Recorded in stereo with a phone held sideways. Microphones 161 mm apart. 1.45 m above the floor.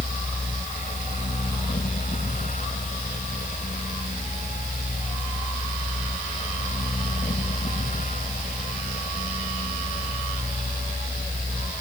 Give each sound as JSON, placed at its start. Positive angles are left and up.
{"t": 0.0, "sound": "a fan", "side_deg": 55}